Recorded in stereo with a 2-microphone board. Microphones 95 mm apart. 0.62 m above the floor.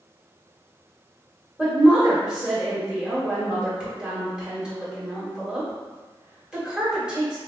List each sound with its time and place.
1.6 s a woman speaking: 10° right (ahead or behind), 1.7 m